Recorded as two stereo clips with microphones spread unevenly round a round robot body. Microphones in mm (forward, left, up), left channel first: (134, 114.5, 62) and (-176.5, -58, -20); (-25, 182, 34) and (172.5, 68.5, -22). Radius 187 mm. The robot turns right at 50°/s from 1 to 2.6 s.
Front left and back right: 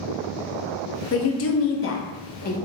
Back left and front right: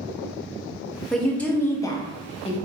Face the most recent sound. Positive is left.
turn(degrees=95)